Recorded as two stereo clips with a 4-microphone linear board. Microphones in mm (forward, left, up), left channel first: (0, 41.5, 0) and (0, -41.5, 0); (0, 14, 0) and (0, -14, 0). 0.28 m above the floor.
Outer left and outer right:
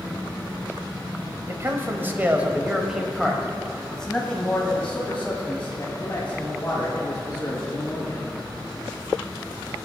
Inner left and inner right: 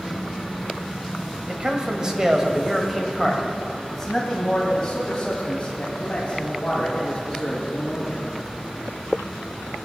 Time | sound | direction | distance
1.5 | a man speaking | 35° right (ahead or behind) | 1.3 m